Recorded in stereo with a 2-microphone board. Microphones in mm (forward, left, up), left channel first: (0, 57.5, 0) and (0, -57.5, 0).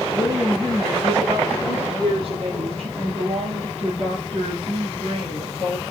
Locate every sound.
0.1 s a woman speaking: 40° right (ahead or behind), 3 m; by 5.8 s 65° right (ahead or behind), 3 m